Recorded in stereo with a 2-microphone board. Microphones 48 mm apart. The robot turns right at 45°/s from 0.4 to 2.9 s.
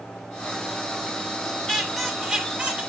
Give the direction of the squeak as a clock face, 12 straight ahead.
6 o'clock.